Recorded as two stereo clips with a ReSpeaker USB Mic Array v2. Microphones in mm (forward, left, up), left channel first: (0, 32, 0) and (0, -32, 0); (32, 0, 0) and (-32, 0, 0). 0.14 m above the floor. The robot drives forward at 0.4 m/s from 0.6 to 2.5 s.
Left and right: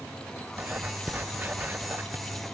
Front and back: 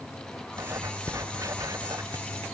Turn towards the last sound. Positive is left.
turn(degrees=-150)